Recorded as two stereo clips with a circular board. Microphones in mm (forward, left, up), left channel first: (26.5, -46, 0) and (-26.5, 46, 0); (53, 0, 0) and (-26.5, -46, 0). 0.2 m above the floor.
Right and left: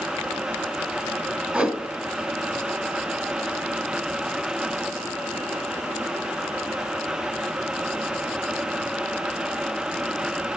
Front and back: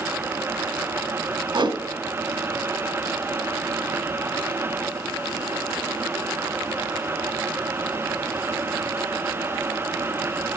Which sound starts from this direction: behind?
A whoosh, at 1.5 s.